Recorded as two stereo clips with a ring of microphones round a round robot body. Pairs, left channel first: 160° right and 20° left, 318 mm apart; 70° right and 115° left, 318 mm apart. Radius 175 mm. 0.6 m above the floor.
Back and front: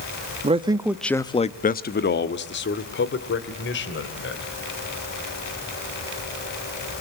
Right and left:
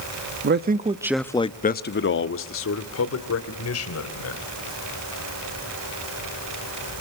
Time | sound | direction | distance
0.4 | a man speaking | 85° left | 1.1 m